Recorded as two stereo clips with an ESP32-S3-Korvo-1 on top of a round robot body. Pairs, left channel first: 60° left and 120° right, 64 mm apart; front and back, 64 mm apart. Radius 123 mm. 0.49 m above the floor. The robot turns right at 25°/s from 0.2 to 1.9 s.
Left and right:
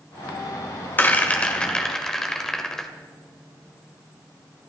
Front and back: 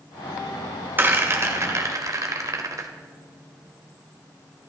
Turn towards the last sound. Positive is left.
turn(degrees=145)